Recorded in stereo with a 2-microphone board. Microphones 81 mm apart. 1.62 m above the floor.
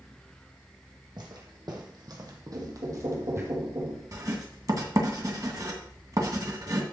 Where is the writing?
45° right (ahead or behind), 2 m.